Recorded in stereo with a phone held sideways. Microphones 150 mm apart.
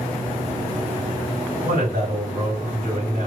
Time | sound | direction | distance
1.6 | a man speaking | 75° right (ahead or behind) | 2.5 m